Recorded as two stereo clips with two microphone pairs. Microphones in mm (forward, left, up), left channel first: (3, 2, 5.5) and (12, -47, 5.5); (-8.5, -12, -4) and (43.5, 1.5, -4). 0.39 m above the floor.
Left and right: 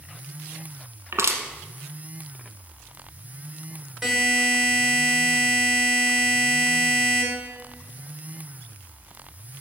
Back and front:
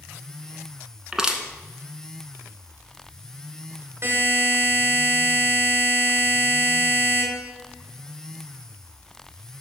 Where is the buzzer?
5° left, 2 m.